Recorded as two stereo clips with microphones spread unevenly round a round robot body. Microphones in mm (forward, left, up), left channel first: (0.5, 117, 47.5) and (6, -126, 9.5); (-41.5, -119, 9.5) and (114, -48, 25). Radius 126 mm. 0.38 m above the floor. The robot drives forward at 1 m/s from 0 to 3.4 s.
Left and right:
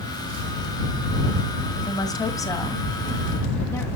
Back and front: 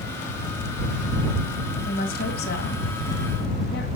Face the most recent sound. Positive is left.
turn(degrees=175)